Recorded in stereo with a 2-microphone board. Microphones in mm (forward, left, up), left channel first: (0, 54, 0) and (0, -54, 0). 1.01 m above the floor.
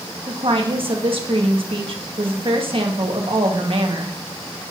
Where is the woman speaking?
55° right (ahead or behind), 1.4 m.